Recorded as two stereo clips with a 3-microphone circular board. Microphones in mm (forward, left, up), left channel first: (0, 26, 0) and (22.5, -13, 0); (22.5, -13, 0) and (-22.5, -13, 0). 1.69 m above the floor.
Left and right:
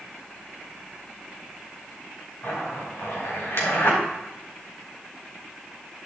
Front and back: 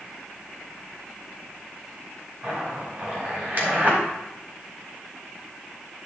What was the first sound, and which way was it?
A zipper, 135° left.